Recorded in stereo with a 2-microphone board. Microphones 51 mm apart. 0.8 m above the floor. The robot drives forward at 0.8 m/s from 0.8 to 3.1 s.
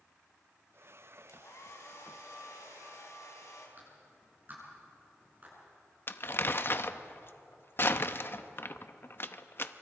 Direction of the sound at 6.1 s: 50° left (ahead or behind).